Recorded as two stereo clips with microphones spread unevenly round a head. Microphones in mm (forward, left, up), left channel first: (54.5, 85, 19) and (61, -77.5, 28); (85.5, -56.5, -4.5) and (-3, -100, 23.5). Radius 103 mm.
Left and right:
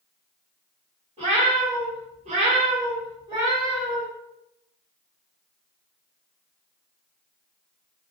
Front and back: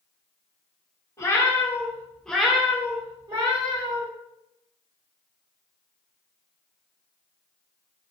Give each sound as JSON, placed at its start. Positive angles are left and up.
{"t": 1.2, "sound": "a cat meowing", "azimuth_deg": -40, "distance_m": 1.1}